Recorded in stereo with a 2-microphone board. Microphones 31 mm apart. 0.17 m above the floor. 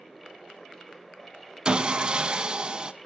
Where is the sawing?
25° right (ahead or behind), 0.6 m.